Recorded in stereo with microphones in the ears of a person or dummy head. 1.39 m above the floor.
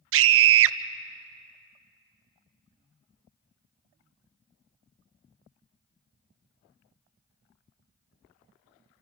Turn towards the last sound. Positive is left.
turn(degrees=-65)  # may be behind; listen again after turning